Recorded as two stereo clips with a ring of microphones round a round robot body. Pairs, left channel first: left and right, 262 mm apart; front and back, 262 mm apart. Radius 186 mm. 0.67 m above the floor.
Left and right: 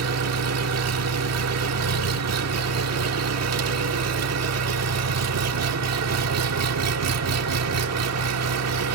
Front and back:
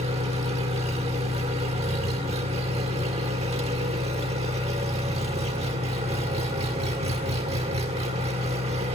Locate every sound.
0.0 s an engine running: 105° right, 1.4 m